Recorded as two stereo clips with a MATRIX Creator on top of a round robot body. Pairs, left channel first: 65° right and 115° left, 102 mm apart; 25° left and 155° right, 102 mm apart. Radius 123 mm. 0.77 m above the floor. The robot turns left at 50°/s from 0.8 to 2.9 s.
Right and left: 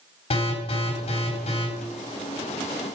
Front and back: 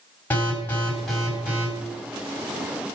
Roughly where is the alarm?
Ahead right.